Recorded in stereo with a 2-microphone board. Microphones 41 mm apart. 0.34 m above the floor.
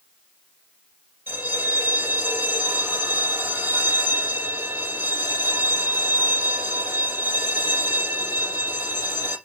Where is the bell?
80° right, 4 m.